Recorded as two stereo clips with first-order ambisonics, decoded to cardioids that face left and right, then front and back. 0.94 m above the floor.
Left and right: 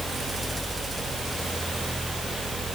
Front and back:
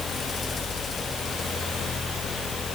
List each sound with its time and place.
Only background noise.